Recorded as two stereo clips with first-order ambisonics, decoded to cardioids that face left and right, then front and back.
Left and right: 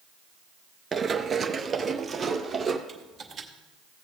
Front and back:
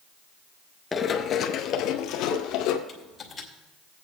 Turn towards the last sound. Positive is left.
turn(degrees=-45)